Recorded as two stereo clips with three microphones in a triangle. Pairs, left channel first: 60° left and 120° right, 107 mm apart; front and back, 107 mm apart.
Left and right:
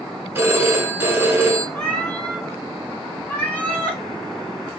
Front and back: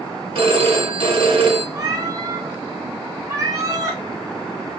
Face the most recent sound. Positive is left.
turn(degrees=135)